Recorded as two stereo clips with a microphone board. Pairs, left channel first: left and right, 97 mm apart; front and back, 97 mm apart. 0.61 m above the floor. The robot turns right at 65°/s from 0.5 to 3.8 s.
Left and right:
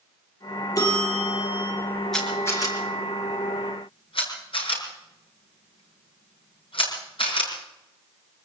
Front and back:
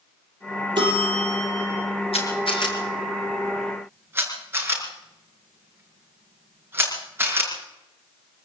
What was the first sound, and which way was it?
A bell, 140° left.